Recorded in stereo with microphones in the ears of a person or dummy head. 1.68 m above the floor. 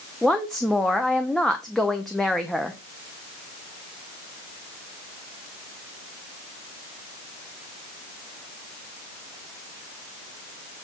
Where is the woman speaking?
5° left (ahead or behind), 0.7 m.